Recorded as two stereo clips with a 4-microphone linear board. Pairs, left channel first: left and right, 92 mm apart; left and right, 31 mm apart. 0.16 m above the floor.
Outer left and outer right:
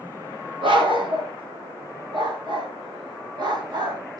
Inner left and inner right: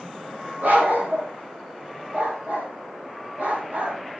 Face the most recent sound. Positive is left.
turn(degrees=-45)  # may be behind; listen again after turning